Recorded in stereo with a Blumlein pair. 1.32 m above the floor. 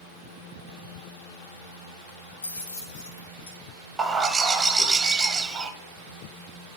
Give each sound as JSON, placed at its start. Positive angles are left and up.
{"t": 2.4, "sound": "keys jangling", "azimuth_deg": 65, "distance_m": 1.3}
{"t": 4.0, "sound": "a bird", "azimuth_deg": -15, "distance_m": 0.8}